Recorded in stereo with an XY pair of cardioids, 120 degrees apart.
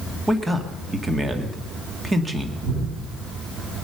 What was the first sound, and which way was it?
A man speaking, 20° right.